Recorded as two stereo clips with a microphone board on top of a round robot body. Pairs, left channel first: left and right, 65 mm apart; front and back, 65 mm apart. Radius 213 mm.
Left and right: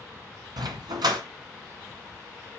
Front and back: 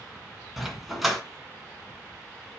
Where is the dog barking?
90° right, 1.7 m.